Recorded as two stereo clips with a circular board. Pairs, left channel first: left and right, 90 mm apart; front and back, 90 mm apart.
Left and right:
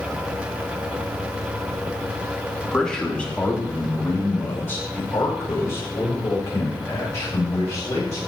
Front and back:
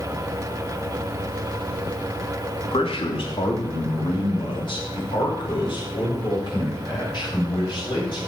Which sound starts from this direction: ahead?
A man speaking, at 2.7 s.